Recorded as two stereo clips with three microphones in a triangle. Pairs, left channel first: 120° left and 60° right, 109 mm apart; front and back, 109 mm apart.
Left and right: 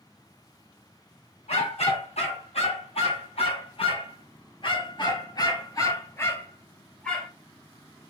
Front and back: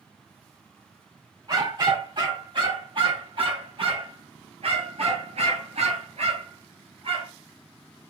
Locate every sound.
1.5 s a dog barking: 130° left, 3 m; by 7.3 s 155° right, 1.6 m